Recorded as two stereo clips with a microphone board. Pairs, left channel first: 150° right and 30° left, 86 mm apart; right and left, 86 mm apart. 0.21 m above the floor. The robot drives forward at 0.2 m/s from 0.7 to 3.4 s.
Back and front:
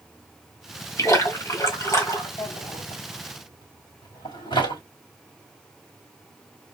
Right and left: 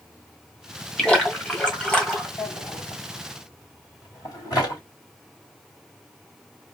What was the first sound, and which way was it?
A splash, 160° right.